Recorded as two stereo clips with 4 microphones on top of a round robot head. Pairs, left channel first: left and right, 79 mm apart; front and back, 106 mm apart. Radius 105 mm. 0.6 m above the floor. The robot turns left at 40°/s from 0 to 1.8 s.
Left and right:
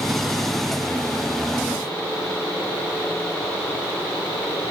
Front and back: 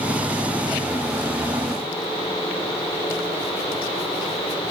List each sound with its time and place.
Only background noise.